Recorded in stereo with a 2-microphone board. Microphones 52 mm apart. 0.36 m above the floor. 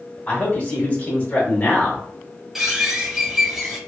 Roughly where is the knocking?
No knocking in this recording.